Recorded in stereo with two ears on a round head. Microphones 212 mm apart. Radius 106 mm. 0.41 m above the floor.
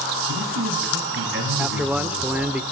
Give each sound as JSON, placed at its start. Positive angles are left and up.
{"t": 0.3, "sound": "a man speaking", "side_deg": -50, "distance_m": 6.5}
{"t": 1.6, "sound": "a man speaking", "side_deg": -5, "distance_m": 0.8}